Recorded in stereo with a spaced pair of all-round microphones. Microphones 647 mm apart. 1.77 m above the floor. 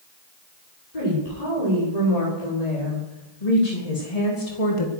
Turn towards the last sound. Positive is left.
turn(degrees=50)  # may be behind; listen again after turning